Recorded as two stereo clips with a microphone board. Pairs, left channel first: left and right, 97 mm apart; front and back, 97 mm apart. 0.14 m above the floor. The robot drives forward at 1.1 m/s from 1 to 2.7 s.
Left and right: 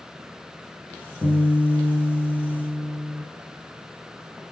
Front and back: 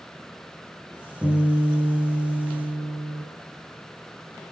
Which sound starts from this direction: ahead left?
A guitar, at 1.2 s.